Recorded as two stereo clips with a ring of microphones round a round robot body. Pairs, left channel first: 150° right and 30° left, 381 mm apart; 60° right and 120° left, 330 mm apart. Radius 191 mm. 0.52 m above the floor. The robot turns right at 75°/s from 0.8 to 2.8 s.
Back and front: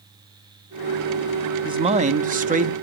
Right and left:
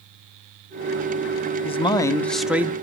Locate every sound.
1.6 s a man speaking: 25° right, 0.6 m; by 2.7 s 55° left, 0.6 m